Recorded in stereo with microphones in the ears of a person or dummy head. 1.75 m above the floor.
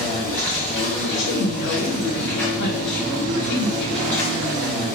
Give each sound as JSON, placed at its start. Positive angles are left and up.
{"t": 0.0, "sound": "an insect", "side_deg": 10, "distance_m": 2.0}
{"t": 1.0, "sound": "a woman speaking", "side_deg": 80, "distance_m": 2.0}